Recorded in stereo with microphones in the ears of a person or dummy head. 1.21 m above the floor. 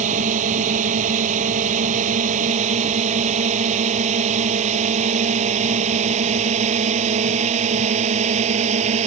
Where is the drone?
45° right (ahead or behind); by 9.1 s 40° right (ahead or behind).